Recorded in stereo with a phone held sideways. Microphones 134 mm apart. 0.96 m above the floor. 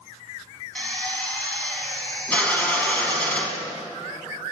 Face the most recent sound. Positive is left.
turn(degrees=10)  # may be behind; listen again after turning